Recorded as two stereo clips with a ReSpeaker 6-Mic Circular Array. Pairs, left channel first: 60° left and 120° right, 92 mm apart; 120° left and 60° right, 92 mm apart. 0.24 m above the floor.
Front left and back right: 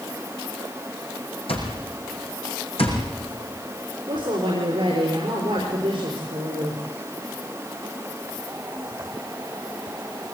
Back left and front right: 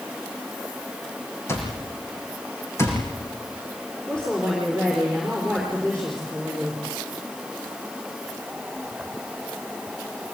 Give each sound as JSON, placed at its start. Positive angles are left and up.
{"t": 1.5, "sound": "an alarm clock", "azimuth_deg": 60, "distance_m": 5.5}
{"t": 4.1, "sound": "a woman speaking", "azimuth_deg": -155, "distance_m": 6.0}